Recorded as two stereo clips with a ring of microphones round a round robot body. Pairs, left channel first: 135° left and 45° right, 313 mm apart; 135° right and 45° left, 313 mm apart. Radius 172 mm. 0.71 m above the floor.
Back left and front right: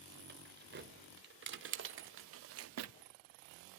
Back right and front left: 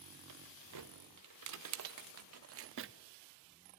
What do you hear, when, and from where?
0.3 s keys jangling: 15° left, 2.5 m; by 2.9 s 10° right, 0.8 m